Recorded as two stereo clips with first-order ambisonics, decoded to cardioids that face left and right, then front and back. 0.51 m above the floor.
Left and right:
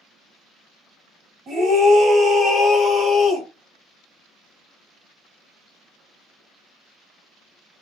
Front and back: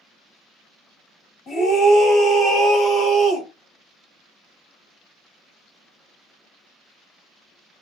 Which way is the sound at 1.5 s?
45° right.